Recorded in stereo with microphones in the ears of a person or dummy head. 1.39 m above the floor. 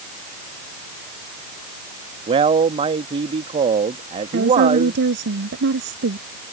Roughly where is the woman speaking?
Right.